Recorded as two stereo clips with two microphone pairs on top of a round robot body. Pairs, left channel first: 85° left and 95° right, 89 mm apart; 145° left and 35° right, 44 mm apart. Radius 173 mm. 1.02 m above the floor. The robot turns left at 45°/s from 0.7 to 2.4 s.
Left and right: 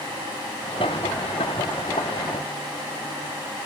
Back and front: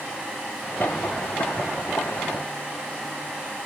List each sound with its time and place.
Only background noise.